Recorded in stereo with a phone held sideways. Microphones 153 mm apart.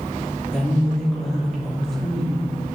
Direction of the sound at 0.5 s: 5° left (ahead or behind).